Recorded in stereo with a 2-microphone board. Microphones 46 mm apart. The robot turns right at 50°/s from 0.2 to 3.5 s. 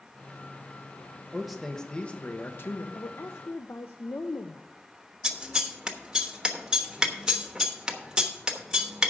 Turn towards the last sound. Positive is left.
turn(degrees=-15)  # may be behind; listen again after turning